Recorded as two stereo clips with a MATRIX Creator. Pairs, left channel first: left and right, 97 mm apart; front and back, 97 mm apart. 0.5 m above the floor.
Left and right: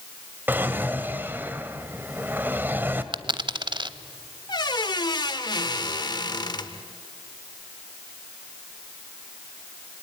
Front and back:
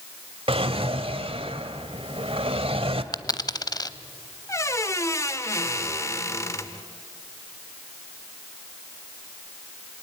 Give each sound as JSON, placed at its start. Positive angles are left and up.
{"t": 0.5, "sound": "a drawer", "azimuth_deg": -160, "distance_m": 1.2}
{"t": 3.1, "sound": "a dropped coin", "azimuth_deg": -50, "distance_m": 0.7}
{"t": 4.5, "sound": "a squeak", "azimuth_deg": 55, "distance_m": 1.1}